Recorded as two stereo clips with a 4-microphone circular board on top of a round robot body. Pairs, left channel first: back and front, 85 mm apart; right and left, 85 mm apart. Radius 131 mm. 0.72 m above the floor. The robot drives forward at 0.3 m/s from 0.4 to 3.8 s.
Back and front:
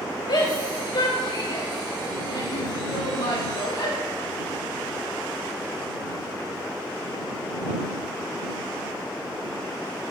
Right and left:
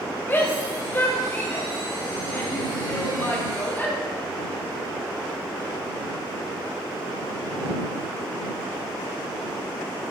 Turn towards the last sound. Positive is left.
turn(degrees=-155)